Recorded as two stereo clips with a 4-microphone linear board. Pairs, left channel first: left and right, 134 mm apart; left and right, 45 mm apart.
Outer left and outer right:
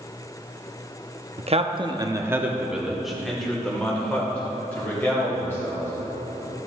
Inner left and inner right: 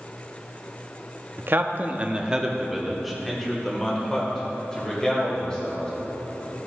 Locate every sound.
1.4 s a man speaking: 50° right (ahead or behind), 0.7 m; by 5.9 s 15° left (ahead or behind), 3 m